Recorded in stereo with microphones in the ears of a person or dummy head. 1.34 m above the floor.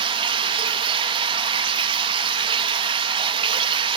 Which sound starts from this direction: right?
Running water, at 0.0 s.